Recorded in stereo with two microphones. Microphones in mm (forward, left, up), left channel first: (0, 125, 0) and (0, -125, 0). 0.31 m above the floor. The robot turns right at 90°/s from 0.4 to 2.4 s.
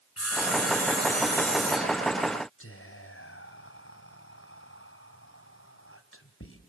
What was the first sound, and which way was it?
Sawing, 80° left.